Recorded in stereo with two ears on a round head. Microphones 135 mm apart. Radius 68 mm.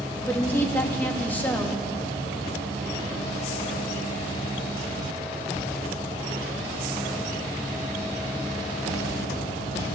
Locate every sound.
0.3 s a woman speaking: 15° left (ahead or behind), 1.1 m